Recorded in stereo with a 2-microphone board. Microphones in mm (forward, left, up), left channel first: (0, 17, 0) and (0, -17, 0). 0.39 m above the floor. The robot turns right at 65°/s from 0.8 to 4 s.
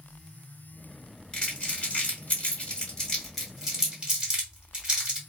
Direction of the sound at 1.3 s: 25° left (ahead or behind).